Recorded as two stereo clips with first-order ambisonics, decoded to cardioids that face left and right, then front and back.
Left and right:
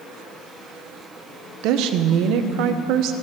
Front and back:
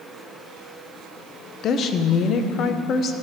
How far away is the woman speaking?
About 0.7 m.